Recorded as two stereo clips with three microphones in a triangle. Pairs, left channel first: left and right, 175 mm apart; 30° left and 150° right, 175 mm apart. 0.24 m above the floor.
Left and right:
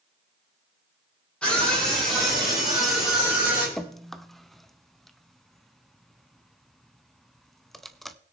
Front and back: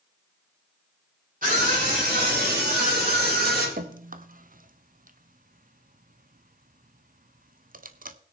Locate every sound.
1.4 s a scream: 175° left, 7.5 m; by 3.7 s 175° right, 10 m
3.8 s dripping: straight behind, 0.7 m